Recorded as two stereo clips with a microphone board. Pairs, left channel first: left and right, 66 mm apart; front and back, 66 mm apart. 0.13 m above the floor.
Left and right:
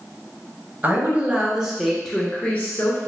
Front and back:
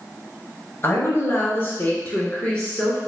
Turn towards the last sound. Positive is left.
turn(degrees=80)